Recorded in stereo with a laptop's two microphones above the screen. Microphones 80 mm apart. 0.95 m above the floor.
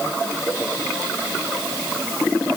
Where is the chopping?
I don't hear chopping.